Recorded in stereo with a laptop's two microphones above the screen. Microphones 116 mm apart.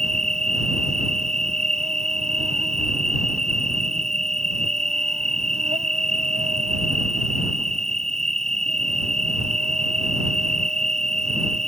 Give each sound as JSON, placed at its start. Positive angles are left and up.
{"t": 0.0, "sound": "an insect", "side_deg": -80}